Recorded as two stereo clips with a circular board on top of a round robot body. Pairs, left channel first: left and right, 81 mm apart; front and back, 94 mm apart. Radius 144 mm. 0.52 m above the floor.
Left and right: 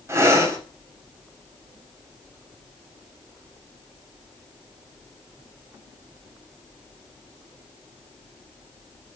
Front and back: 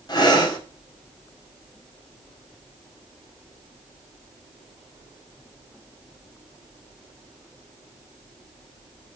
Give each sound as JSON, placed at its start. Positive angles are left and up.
{"t": 0.1, "sound": "breathing", "azimuth_deg": -35, "distance_m": 1.9}